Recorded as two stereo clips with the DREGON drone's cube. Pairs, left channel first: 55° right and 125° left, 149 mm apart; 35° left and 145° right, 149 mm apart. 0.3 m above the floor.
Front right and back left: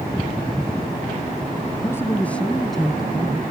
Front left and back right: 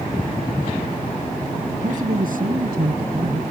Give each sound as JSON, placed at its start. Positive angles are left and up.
{"t": 1.7, "sound": "a man speaking", "azimuth_deg": -125}